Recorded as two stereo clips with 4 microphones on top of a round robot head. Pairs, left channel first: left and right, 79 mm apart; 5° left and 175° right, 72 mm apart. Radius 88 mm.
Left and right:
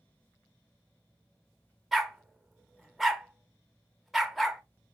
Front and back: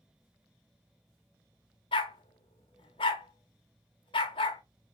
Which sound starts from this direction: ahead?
A dog barking, at 1.9 s.